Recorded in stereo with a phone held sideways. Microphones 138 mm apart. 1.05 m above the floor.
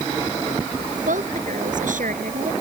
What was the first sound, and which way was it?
A woman speaking, 75° right (ahead or behind).